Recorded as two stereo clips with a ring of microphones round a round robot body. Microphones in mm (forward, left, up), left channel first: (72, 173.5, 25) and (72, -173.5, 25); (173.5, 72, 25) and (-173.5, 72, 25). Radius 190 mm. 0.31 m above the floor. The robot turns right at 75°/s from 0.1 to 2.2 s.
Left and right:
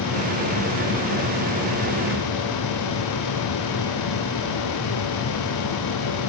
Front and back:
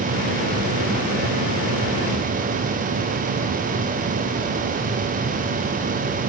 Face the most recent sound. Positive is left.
No sound to turn to.